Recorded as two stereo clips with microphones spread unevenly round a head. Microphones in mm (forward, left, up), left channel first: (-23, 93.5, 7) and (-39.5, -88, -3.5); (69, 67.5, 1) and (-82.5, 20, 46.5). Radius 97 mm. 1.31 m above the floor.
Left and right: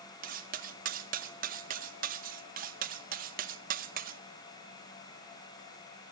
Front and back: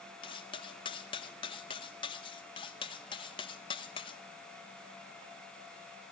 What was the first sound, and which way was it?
Cutlery clinking, 55° right.